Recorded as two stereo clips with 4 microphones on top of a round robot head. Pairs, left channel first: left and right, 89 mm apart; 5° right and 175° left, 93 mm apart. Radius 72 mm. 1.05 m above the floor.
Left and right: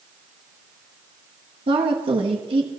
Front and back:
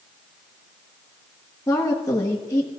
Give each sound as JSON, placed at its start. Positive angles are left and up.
{"t": 1.7, "sound": "a woman speaking", "azimuth_deg": -70, "distance_m": 1.5}